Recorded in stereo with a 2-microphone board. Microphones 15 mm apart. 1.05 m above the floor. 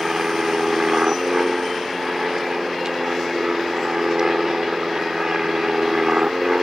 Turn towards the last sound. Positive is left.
turn(degrees=-35)  # may be behind; listen again after turning